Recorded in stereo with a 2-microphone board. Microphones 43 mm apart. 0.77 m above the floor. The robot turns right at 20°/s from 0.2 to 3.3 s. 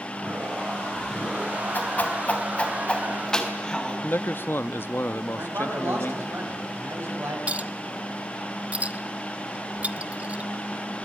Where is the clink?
30° right (ahead or behind), 0.7 m.